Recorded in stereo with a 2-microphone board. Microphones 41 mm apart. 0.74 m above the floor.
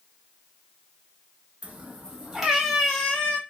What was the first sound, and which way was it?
A cat meowing, 35° right (ahead or behind).